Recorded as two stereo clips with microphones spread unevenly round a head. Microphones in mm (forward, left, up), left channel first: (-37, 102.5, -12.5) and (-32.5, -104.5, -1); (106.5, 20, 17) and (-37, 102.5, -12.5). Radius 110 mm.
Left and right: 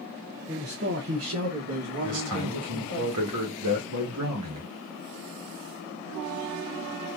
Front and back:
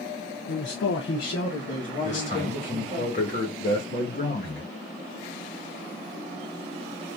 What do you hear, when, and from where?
0.5 s a man speaking: 10° right, 0.6 m; by 3.0 s 100° right, 2 m
2.0 s a man speaking: 90° right, 1.5 m